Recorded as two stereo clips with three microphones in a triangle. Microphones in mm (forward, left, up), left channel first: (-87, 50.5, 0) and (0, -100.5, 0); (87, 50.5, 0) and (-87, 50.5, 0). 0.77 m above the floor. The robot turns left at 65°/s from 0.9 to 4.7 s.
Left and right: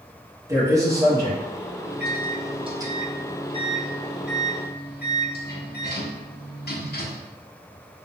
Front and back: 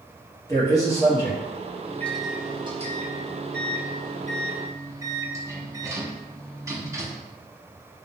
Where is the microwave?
70° right, 0.6 m; by 7.3 s 105° left, 0.6 m.